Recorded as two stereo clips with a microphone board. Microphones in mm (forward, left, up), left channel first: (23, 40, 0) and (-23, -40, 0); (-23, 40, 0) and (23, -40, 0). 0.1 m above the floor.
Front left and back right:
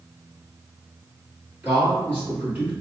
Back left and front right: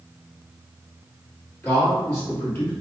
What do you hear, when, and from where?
1.6 s a man speaking: straight behind, 1.8 m